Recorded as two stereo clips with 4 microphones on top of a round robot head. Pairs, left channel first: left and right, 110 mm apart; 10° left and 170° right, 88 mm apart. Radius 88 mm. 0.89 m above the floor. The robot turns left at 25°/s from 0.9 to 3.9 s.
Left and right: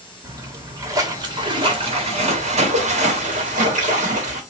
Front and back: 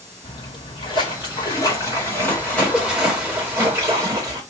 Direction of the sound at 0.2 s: 30° right.